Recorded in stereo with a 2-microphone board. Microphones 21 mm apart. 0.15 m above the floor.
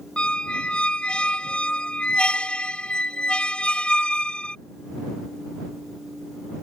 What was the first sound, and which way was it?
A squeak, 65° left (ahead or behind).